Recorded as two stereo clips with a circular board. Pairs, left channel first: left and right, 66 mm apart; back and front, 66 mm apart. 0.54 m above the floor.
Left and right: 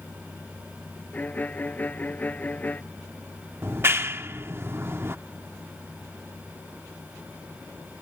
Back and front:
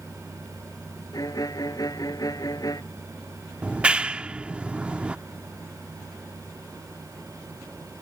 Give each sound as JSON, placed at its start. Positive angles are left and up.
{"t": 1.1, "sound": "a violin", "azimuth_deg": 155}
{"t": 3.6, "sound": "a clap", "azimuth_deg": -60}